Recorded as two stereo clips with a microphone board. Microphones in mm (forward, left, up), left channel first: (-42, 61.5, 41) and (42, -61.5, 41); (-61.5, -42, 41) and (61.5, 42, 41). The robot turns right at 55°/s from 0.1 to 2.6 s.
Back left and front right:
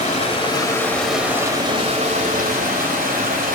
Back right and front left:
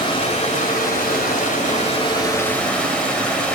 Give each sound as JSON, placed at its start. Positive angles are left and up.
{"t": 0.0, "sound": "running water", "azimuth_deg": 160, "distance_m": 2.5}